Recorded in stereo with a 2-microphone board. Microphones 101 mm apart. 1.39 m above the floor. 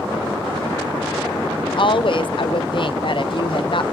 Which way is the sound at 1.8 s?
55° left (ahead or behind).